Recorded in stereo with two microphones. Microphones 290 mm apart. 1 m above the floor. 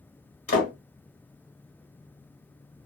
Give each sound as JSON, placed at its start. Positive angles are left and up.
{"t": 0.5, "sound": "a door slam", "side_deg": 50, "distance_m": 1.4}